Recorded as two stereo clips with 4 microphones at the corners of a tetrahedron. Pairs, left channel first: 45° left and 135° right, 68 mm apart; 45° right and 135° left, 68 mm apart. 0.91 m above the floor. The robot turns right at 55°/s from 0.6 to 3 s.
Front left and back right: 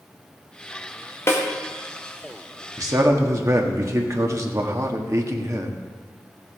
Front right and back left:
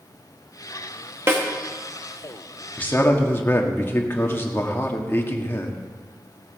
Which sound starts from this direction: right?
A man speaking, at 2.8 s.